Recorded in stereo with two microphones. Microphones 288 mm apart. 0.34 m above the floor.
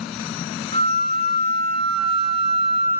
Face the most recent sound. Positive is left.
turn(degrees=20)  # may be behind; listen again after turning